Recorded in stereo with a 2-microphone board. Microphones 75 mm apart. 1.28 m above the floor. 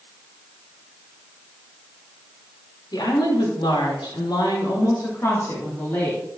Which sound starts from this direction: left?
A woman speaking, at 2.9 s.